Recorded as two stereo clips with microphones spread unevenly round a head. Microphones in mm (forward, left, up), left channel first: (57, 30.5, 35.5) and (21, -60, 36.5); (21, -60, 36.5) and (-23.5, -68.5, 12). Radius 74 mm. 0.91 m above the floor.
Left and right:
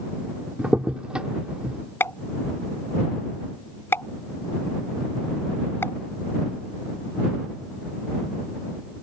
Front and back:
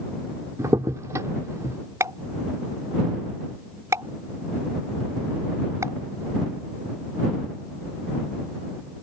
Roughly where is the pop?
Behind left.